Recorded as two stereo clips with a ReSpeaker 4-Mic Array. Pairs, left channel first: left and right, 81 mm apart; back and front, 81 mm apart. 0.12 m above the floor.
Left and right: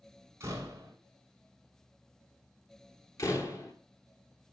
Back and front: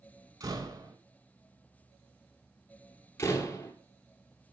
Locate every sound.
0.4 s a door slam: 30° right, 3.5 m
3.2 s a door slam: 130° left, 1.8 m